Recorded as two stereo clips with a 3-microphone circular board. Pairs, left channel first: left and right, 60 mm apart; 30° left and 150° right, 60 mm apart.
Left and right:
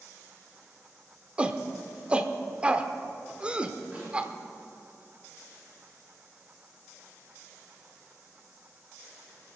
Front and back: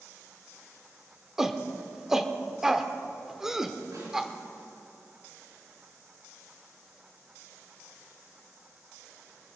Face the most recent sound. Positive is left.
turn(degrees=-155)